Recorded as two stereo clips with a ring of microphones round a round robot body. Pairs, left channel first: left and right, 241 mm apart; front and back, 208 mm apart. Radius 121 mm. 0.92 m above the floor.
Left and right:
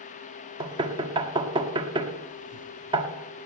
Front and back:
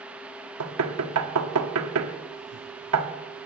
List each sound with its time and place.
0.6 s knocking: 160° right, 1.3 m